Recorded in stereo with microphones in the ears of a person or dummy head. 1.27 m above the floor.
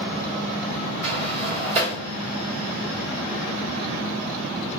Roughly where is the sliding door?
Right.